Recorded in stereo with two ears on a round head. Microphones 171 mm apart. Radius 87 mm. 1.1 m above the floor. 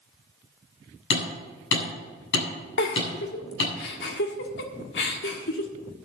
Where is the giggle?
65° left (ahead or behind), 1.6 m.